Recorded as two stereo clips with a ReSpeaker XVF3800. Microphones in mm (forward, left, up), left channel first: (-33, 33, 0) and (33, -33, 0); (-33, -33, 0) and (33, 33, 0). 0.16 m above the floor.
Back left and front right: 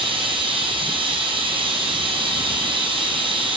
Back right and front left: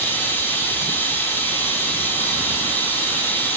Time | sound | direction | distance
0.0 | running water | 65° right | 2.5 m